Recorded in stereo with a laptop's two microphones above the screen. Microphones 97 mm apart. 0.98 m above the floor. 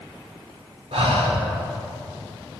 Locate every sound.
0.9 s breathing: 85° right, 1.6 m